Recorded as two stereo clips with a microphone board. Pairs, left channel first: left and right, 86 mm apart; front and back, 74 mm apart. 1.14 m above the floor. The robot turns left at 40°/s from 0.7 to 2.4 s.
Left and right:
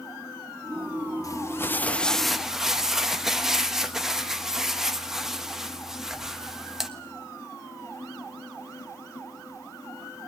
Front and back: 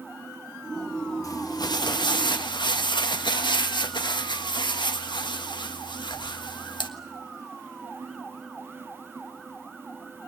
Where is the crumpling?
40° left, 1.4 m; by 6.9 s 5° right, 1.4 m.